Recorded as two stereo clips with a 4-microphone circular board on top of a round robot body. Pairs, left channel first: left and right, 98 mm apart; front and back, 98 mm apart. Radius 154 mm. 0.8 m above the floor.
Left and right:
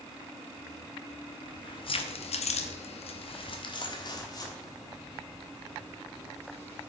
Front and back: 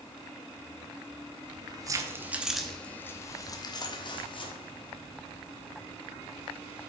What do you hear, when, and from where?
1.4 s keys jangling: 135° left, 1.0 m; by 6.9 s 20° left, 3 m